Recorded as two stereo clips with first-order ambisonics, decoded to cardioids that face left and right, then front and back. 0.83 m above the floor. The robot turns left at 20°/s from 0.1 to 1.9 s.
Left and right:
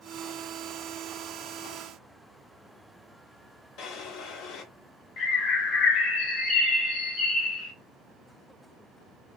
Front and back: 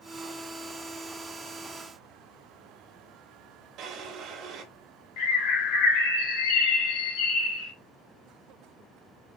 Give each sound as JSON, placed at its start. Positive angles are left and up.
{"t": 3.8, "sound": "a drawer", "azimuth_deg": 130, "distance_m": 0.8}
{"t": 5.2, "sound": "a bird", "azimuth_deg": 30, "distance_m": 1.0}